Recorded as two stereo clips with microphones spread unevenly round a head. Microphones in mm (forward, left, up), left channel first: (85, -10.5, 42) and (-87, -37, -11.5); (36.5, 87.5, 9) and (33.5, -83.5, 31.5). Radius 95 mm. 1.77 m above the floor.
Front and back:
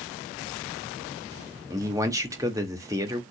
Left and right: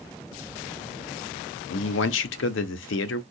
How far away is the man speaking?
About 0.7 m.